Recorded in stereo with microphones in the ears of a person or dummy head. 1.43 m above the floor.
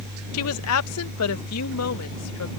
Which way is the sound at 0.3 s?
80° left.